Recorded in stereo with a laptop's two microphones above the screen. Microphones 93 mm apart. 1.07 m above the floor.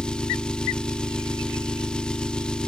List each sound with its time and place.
0.0 s an engine running: 10° left (ahead or behind), 1.0 m